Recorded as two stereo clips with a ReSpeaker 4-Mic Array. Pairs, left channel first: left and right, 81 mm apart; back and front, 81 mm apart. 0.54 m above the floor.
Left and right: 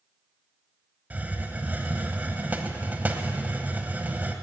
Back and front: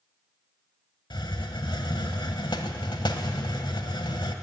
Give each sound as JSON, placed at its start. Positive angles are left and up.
{"t": 1.1, "sound": "a hiss", "azimuth_deg": -160, "distance_m": 0.9}